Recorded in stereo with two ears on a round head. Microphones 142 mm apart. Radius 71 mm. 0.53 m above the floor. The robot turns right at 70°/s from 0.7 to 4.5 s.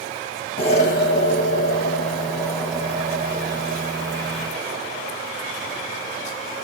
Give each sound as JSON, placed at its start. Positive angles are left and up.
{"t": 0.6, "sound": "an explosion", "azimuth_deg": 40, "distance_m": 0.8}